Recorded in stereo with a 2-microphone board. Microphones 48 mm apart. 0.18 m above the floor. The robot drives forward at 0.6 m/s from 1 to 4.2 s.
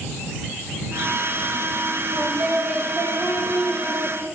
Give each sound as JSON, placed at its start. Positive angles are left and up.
{"t": 2.1, "sound": "singing", "side_deg": -35, "distance_m": 4.5}